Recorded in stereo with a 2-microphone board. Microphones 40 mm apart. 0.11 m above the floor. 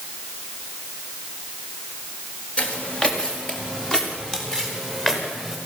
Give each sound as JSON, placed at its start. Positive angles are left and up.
{"t": 2.6, "sound": "footsteps", "side_deg": 25, "distance_m": 5.5}